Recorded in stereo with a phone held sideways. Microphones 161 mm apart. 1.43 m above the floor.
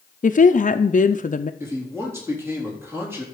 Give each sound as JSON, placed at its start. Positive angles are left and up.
{"t": 0.2, "sound": "a woman speaking", "side_deg": 55, "distance_m": 0.5}
{"t": 1.6, "sound": "a man speaking", "side_deg": -15, "distance_m": 3.0}